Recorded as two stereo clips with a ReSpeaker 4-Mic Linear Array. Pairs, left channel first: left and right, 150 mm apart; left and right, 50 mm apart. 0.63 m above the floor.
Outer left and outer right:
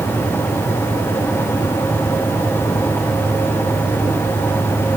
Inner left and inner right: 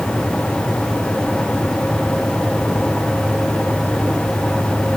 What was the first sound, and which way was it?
Only background noise.